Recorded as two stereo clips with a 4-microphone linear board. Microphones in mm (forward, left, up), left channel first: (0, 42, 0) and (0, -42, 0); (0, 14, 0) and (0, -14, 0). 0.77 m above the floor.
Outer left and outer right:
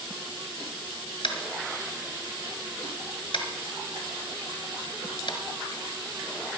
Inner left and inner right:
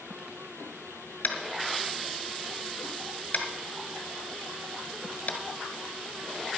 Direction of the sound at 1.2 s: 60° left (ahead or behind).